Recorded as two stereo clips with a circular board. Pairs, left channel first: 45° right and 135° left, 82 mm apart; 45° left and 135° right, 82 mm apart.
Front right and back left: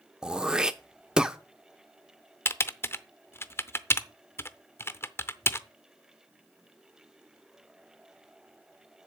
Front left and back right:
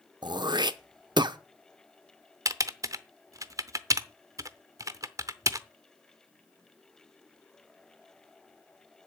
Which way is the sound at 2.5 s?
100° right.